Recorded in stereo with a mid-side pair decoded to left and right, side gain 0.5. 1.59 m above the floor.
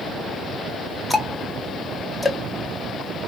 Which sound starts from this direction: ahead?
Ticking, at 1.1 s.